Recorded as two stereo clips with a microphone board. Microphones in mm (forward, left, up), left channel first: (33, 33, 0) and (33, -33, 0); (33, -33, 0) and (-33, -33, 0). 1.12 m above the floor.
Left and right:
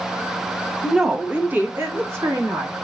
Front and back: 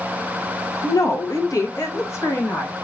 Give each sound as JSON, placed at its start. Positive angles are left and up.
{"t": 0.8, "sound": "a woman speaking", "azimuth_deg": -5, "distance_m": 0.7}